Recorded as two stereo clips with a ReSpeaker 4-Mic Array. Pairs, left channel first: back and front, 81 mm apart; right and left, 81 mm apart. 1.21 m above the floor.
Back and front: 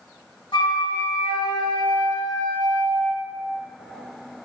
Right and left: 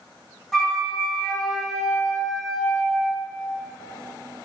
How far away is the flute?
About 1.7 m.